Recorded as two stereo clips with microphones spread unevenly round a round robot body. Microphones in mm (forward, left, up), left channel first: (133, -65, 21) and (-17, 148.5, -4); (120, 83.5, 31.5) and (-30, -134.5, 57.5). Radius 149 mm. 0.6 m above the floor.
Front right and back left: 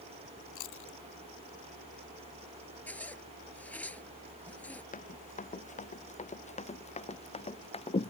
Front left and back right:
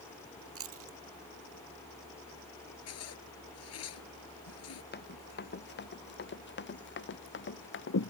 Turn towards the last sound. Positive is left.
turn(degrees=10)